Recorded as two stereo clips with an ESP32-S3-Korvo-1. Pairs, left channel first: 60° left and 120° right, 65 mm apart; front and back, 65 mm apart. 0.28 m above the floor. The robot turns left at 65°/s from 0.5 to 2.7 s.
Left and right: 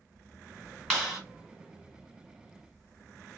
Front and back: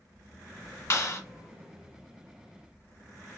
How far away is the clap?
About 1.7 m.